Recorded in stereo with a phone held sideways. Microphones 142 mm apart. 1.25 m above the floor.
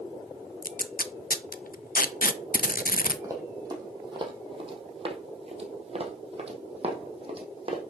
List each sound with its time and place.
0.6 s tape being pulled: 75° left (ahead or behind), 0.6 m
3.2 s running footsteps: 25° right (ahead or behind), 2 m; by 7.8 s 35° right (ahead or behind), 2.5 m